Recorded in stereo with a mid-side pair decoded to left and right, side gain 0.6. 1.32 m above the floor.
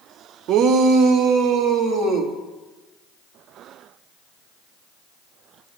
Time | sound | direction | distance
0.5 | a shout | 60° right | 0.7 m